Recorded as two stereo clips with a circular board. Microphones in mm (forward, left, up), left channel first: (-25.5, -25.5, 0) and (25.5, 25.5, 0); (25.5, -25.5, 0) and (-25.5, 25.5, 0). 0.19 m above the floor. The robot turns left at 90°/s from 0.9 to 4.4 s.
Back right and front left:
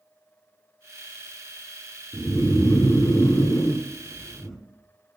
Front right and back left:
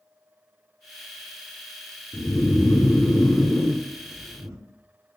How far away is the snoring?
About 1.4 m.